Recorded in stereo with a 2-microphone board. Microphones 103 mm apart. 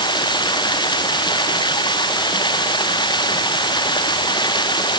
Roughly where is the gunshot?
I don't hear a gunshot.